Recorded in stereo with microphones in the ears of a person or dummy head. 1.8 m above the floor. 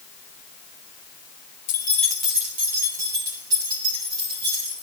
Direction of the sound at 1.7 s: 30° left (ahead or behind).